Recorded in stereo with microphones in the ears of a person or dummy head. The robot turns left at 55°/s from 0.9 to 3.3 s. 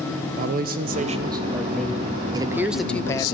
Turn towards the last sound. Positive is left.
turn(degrees=150)